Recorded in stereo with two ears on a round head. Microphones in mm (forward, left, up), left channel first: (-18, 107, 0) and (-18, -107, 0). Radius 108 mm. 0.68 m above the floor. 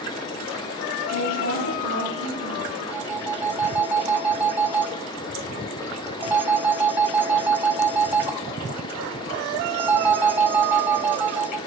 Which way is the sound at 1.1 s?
80° left.